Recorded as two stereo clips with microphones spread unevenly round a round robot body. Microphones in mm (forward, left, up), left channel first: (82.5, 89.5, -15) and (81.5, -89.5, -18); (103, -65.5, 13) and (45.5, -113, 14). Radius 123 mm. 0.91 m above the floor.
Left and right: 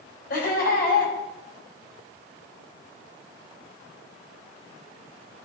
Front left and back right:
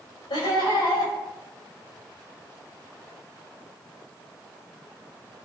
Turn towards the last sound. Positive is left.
turn(degrees=55)